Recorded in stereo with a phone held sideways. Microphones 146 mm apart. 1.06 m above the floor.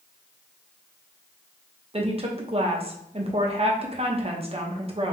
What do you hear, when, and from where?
1.9 s a woman speaking: 40° right (ahead or behind), 0.8 m